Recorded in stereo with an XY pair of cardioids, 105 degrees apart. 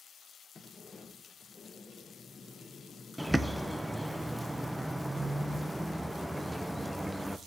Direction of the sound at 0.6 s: 35° left.